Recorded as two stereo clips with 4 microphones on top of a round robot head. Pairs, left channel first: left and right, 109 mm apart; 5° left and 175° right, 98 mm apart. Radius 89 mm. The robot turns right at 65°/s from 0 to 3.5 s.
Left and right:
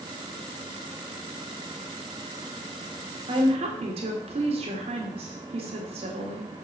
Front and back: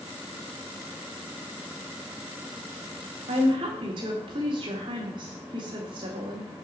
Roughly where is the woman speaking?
Behind right.